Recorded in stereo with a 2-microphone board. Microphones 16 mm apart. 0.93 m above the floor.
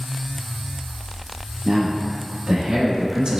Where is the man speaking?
85° right, 1.9 m; by 3.4 s 55° right (ahead or behind), 0.6 m.